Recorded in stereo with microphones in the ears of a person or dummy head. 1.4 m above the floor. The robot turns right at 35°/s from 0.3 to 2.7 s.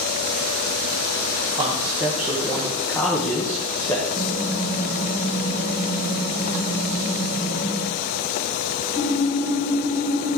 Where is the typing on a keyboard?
70° left (ahead or behind), 4.5 m.